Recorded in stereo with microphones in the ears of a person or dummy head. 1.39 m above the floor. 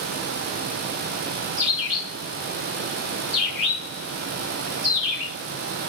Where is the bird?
60° right (ahead or behind), 2.5 m.